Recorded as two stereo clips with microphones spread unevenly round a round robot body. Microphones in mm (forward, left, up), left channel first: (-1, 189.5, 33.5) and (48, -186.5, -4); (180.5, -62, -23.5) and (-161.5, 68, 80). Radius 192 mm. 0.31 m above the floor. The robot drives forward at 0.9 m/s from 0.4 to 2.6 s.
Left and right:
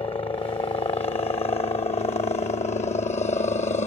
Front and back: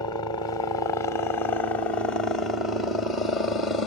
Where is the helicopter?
25° left; by 3.9 s 35° left.